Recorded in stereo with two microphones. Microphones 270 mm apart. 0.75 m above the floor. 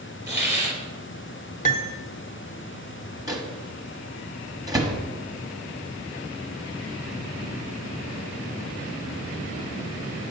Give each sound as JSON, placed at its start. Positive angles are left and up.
{"t": 0.3, "sound": "a hiss", "side_deg": -10, "distance_m": 3.5}
{"t": 1.6, "sound": "cutlery clinking", "side_deg": 25, "distance_m": 0.9}
{"t": 3.3, "sound": "a microwave", "side_deg": -10, "distance_m": 1.3}